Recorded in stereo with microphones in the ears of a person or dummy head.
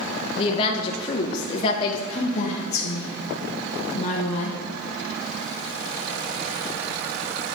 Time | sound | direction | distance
0.3 | a woman speaking | 35° left (ahead or behind) | 0.5 m
2.1 | a woman speaking | 30° left (ahead or behind) | 0.9 m